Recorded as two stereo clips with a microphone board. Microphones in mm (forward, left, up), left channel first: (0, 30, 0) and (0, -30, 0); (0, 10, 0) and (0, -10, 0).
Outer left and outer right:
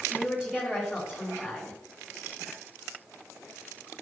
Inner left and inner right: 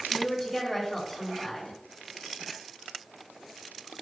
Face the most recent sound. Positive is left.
turn(degrees=-15)  # may be behind; listen again after turning